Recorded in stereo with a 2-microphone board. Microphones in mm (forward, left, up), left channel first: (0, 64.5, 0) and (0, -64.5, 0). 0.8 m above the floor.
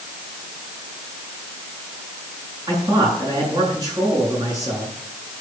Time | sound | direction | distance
2.7 | a man speaking | 30° right (ahead or behind) | 8 m